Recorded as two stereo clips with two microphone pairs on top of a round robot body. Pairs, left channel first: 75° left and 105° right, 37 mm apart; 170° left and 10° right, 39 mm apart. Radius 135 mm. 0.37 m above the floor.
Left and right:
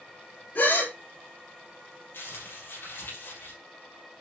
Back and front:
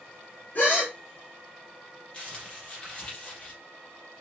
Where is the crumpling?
110° left, 4.5 m.